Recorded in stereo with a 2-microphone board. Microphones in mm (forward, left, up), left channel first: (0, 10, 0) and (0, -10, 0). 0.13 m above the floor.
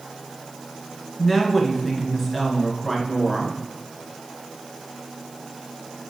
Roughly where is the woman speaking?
Centre.